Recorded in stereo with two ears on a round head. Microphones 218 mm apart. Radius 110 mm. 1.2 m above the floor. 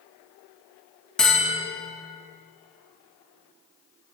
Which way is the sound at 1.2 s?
5° left (ahead or behind).